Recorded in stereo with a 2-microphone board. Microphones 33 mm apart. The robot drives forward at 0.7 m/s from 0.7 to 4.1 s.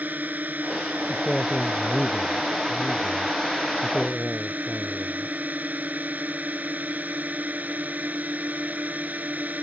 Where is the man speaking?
10° left (ahead or behind).